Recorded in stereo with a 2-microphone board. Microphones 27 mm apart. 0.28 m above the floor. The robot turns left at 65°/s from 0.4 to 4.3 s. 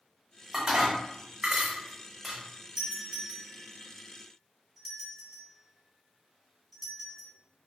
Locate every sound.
0.5 s dishes clattering: 20° right (ahead or behind), 0.7 m; by 2.4 s 5° left (ahead or behind), 0.7 m
2.8 s a doorbell: 25° right (ahead or behind), 1.8 m; by 7.3 s 5° right (ahead or behind), 1.8 m